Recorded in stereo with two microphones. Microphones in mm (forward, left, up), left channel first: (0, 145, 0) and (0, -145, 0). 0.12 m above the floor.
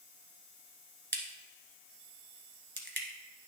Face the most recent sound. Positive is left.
turn(degrees=-40)  # may be behind; listen again after turning